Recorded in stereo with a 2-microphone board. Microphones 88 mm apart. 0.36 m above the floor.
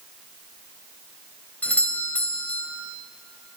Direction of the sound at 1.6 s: 20° left (ahead or behind).